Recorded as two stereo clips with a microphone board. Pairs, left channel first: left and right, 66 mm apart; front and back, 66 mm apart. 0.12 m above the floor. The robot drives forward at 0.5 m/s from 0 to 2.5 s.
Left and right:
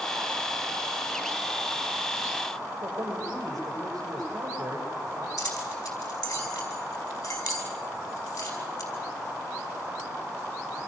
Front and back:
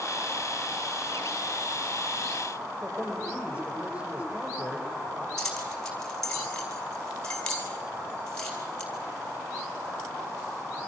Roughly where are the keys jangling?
Left.